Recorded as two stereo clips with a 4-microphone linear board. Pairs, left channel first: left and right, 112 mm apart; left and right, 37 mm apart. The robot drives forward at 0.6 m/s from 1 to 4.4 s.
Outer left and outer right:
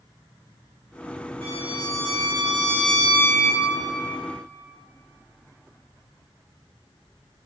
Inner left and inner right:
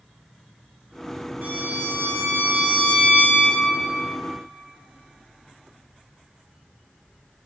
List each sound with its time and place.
1.4 s a violin: 70° right (ahead or behind), 2.5 m; by 3.6 s 45° right (ahead or behind), 3 m